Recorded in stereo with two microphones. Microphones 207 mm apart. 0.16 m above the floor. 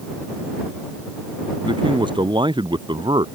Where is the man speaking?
20° right (ahead or behind).